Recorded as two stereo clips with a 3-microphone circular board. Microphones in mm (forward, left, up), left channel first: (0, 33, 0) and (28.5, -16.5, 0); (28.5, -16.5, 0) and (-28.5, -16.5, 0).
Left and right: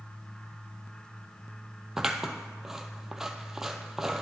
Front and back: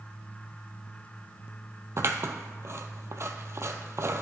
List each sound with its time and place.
2.0 s scissors: 145° right, 0.6 m